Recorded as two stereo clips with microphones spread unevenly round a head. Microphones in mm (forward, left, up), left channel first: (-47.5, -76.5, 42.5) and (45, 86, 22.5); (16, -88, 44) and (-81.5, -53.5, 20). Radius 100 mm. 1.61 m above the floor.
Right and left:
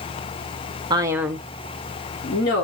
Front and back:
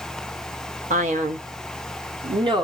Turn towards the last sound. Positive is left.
turn(degrees=-150)